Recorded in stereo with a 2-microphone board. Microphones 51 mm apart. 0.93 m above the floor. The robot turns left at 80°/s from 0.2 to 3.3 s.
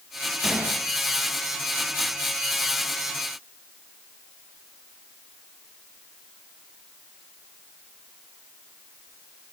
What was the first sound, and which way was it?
A gunshot, 5° right (ahead or behind).